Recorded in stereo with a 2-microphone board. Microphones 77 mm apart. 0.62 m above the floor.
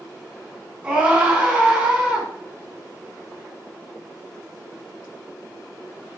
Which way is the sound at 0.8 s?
15° right (ahead or behind).